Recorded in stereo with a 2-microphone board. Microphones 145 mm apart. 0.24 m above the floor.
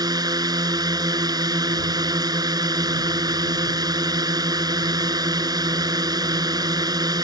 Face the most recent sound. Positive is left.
turn(degrees=-25)  # may be behind; listen again after turning